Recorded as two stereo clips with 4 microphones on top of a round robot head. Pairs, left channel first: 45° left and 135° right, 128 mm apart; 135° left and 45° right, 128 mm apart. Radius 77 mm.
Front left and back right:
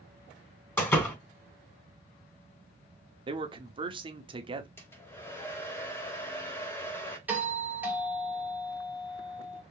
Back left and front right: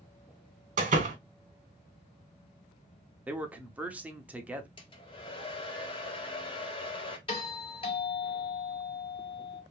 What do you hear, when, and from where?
0.8 s a door slam: 25° right, 2 m
3.3 s a man speaking: 120° right, 0.9 m
4.8 s a hair dryer: 110° left, 1.4 m
7.3 s a doorbell: 155° left, 2.5 m